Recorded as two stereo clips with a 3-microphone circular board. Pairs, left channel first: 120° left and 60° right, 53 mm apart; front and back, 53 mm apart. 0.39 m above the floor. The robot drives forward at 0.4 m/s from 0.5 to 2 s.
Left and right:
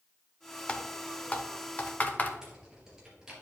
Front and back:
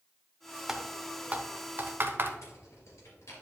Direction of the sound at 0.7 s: 120° left.